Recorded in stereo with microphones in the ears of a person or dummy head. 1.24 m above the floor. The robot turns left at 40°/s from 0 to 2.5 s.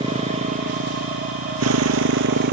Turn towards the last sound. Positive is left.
turn(degrees=-125)